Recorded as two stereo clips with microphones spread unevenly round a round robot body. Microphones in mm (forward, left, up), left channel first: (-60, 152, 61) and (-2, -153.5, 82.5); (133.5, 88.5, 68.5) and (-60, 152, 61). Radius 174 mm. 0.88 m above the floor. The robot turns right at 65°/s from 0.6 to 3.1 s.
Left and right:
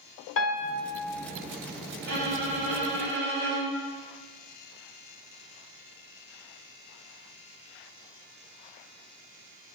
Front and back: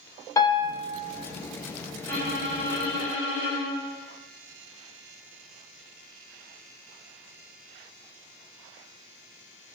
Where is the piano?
50° left, 0.8 m; by 0.8 s 65° left, 0.8 m.